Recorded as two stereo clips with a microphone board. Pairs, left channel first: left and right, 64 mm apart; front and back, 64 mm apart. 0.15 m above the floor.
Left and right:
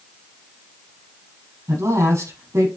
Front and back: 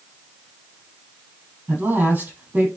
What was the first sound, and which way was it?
A woman speaking, 120° right.